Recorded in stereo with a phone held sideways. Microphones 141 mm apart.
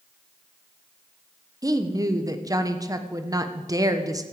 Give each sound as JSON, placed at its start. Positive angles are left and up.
{"t": 1.6, "sound": "a woman speaking", "side_deg": -25, "distance_m": 1.1}